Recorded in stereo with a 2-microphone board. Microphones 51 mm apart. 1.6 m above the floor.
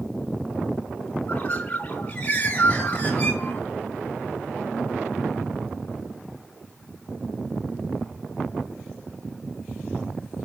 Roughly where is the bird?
Left.